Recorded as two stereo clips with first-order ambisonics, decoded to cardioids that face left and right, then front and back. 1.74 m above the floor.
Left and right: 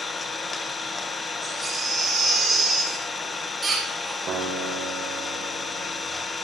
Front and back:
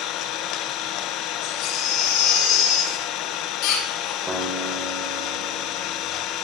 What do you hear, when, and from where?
0.0 s an engine running: 15° left, 0.9 m
1.4 s a baby crying: 10° right, 3 m
4.3 s a guitar: 120° right, 1.7 m